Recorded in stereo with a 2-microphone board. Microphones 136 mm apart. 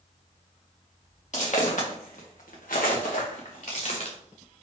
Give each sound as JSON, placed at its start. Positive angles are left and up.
{"t": 1.3, "sound": "footsteps", "side_deg": 60, "distance_m": 1.9}